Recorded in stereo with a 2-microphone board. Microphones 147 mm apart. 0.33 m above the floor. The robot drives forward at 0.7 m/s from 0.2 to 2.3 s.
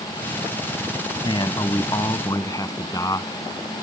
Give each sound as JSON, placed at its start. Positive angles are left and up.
{"t": 1.2, "sound": "a man speaking", "side_deg": 35}